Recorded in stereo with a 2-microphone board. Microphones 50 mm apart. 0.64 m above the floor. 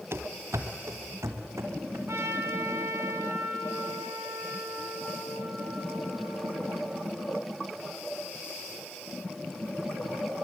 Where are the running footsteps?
50° right (ahead or behind), 0.9 m; by 2.0 s 70° right (ahead or behind), 3.5 m.